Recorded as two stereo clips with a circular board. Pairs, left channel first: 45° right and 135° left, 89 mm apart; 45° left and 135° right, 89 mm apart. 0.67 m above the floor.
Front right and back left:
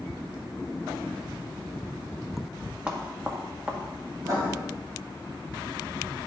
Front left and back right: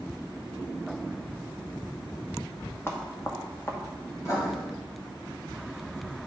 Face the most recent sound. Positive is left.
turn(degrees=90)